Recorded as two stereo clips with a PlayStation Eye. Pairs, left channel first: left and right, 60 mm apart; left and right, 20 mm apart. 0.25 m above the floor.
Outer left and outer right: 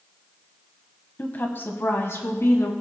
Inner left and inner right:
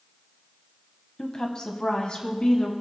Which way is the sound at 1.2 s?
30° left (ahead or behind).